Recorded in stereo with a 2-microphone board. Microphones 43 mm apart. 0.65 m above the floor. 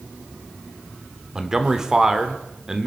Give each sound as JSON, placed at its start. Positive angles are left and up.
{"t": 1.4, "sound": "a man speaking", "side_deg": -15, "distance_m": 1.6}